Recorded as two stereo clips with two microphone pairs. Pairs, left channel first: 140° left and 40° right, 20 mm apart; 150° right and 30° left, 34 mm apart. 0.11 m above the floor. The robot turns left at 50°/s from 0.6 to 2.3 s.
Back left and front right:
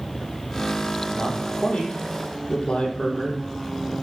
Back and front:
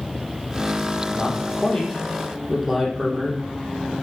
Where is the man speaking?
170° left, 4.5 m; by 3.4 s 110° left, 4.5 m.